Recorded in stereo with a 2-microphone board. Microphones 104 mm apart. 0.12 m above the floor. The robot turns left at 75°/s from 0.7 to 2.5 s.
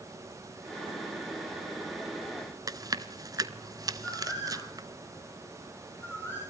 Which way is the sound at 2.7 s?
35° right (ahead or behind).